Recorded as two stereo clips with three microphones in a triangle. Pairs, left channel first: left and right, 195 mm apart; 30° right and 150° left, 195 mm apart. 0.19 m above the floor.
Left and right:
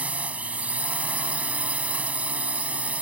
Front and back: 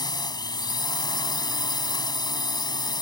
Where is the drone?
20° right.